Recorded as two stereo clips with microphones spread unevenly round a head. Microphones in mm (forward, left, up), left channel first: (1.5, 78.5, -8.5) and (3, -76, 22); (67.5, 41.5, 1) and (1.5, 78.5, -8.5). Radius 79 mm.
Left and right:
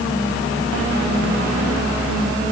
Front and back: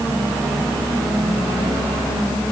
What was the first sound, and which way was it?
Only background noise.